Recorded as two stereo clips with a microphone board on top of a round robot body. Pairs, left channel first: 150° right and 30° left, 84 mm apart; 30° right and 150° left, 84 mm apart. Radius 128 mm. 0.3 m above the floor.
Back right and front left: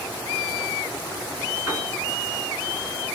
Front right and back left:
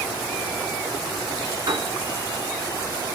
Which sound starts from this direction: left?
A piano, at 1.7 s.